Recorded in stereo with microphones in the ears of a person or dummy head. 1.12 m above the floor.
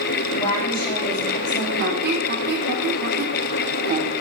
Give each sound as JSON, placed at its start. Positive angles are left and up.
{"t": 0.3, "sound": "a woman speaking", "side_deg": 25, "distance_m": 2.5}
{"t": 1.8, "sound": "a squeak", "side_deg": -50, "distance_m": 1.4}